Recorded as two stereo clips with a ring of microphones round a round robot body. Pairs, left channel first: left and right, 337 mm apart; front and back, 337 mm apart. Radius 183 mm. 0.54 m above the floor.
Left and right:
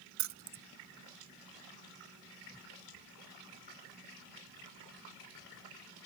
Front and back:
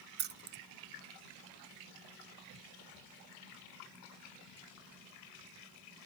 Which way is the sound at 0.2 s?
130° right.